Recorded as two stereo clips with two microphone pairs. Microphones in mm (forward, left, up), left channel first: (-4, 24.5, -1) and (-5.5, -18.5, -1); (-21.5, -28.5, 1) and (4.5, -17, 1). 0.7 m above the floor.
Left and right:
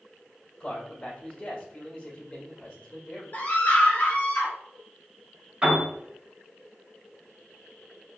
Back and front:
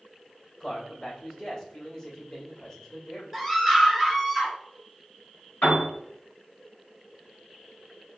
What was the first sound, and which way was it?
A man speaking, 150° left.